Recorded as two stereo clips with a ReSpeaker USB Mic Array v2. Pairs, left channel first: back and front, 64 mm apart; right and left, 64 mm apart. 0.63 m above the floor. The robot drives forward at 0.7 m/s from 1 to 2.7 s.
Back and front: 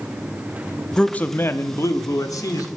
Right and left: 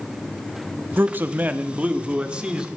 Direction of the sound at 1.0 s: 110° left.